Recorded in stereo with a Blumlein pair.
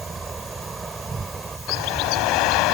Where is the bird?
40° left.